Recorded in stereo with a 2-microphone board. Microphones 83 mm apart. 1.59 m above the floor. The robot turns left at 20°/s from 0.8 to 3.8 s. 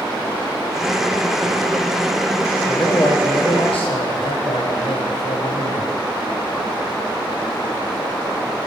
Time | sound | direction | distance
2.7 | a man speaking | 55° left (ahead or behind) | 1.4 m